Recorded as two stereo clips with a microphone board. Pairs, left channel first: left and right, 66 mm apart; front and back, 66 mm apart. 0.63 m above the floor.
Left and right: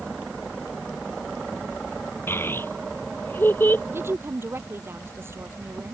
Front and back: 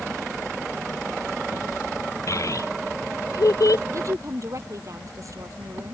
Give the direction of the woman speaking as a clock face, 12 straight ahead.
5 o'clock.